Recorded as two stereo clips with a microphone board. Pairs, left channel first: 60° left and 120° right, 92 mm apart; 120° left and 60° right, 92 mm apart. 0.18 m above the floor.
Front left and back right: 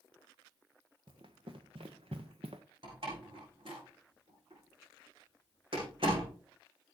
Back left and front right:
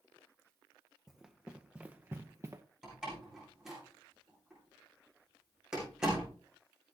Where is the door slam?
145° right, 9 m.